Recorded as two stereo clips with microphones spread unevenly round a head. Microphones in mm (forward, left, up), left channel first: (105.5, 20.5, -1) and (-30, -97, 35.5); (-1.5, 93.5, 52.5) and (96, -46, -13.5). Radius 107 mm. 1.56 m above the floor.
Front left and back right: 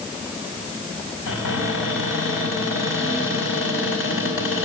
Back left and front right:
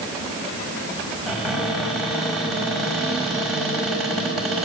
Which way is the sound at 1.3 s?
45° left.